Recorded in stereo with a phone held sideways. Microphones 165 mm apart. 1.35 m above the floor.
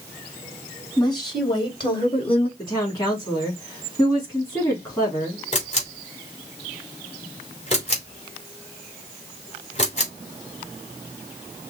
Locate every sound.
1.0 s a woman speaking: 25° left (ahead or behind), 3 m; by 2.5 s 35° left (ahead or behind), 1.5 m
2.6 s a woman speaking: 25° left (ahead or behind), 3 m
5.5 s a camera shutter: 45° left (ahead or behind), 3 m